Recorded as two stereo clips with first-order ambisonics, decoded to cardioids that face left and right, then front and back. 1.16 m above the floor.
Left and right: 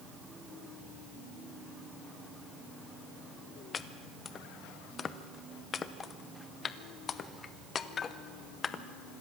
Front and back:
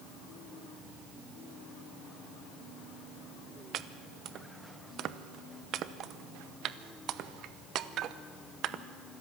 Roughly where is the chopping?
Behind left.